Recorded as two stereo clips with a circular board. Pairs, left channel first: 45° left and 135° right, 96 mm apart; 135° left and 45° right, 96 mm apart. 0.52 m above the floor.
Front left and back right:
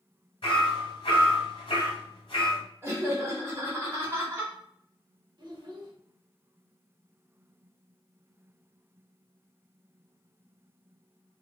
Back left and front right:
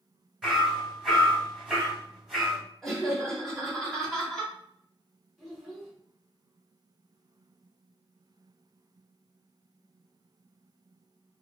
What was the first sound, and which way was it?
Hammering, 40° left.